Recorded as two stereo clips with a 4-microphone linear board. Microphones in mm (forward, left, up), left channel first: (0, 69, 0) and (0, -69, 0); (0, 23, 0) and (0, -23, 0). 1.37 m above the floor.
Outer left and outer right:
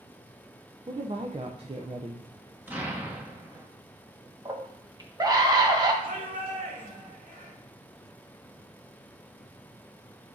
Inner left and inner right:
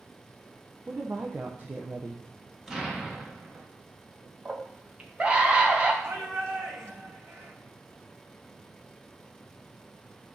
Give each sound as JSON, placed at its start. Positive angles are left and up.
{"t": 0.9, "sound": "a woman speaking", "side_deg": -45, "distance_m": 0.6}
{"t": 2.7, "sound": "an explosion", "side_deg": -15, "distance_m": 1.2}
{"t": 4.5, "sound": "a scream", "side_deg": -30, "distance_m": 1.4}
{"t": 6.0, "sound": "a shout", "side_deg": -85, "distance_m": 2.5}